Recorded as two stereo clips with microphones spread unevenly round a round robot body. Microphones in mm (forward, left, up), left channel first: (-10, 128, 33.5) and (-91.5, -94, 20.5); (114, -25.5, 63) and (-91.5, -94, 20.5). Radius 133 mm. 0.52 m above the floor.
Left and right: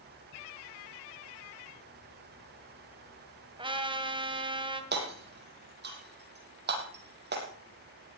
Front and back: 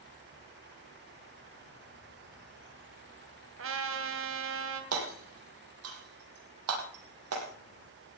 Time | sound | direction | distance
3.6 | a trumpet | straight behind | 3 m
4.9 | hammering | 155° right | 5.5 m